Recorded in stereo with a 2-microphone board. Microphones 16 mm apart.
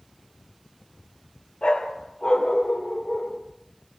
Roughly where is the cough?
No cough in this recording.